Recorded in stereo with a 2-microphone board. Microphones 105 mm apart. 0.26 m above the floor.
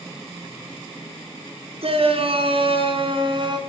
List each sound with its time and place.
1.8 s a shout: 65° right (ahead or behind), 4 m; by 3.6 s 50° right (ahead or behind), 3.5 m